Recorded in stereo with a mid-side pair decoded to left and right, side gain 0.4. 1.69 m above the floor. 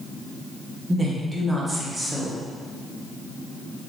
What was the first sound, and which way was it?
A woman speaking, 25° right.